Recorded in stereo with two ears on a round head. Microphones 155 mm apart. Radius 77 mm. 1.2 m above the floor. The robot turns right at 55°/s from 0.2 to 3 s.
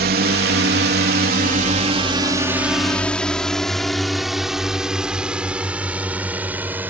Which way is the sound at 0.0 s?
60° right (ahead or behind).